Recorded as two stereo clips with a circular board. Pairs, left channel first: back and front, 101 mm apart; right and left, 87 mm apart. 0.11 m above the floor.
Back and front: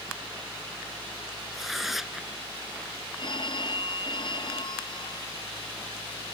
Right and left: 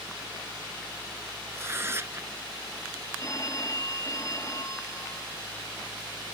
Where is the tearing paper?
85° left.